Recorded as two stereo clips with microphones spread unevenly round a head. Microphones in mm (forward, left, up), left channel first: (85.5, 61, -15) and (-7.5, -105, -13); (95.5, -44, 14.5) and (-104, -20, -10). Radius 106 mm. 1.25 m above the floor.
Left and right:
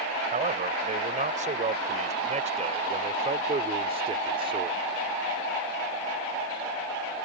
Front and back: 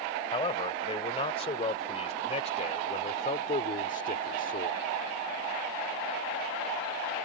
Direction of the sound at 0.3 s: 70° right.